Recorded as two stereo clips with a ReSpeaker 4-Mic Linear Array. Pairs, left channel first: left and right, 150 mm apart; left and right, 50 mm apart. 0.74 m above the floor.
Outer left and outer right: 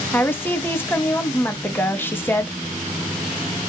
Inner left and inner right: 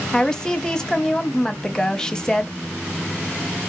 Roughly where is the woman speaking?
Centre.